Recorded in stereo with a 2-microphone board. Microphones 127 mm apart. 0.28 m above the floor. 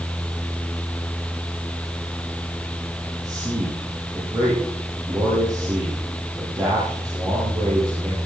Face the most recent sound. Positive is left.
turn(degrees=-30)  # may be behind; listen again after turning